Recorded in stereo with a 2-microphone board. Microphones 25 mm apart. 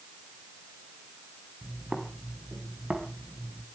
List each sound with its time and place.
1.6 s footsteps: 30° right (ahead or behind), 4.5 m; by 3.6 s 45° right (ahead or behind), 4.5 m